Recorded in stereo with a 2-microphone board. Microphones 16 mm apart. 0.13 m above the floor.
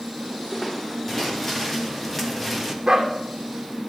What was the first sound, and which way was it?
Footsteps, 25° left (ahead or behind).